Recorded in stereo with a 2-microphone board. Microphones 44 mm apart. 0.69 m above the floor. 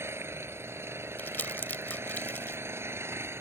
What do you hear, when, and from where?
0.0 s an engine running: 75° right (ahead or behind)
1.2 s crumpling: 50° left (ahead or behind)